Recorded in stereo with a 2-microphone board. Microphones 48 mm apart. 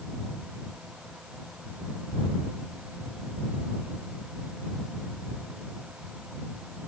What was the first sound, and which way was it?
Only background noise.